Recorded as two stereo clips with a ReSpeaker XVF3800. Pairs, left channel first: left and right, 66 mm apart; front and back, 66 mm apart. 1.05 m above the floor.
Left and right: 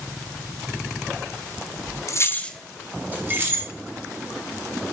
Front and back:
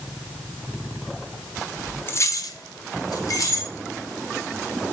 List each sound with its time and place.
2.1 s keys jangling: 50° left, 0.6 m; by 3.7 s 35° right, 1.6 m